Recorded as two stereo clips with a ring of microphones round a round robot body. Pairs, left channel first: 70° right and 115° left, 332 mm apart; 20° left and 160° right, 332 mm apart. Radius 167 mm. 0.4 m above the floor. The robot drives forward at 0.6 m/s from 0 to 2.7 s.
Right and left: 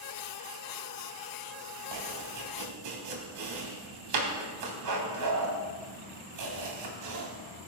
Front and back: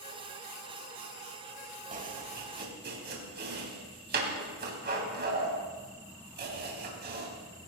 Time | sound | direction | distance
1.9 | chopping | 135° left | 3 m